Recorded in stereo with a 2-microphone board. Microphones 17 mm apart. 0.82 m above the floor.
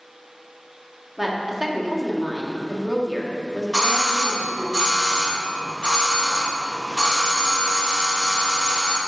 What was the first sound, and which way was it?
A woman speaking, 10° right (ahead or behind).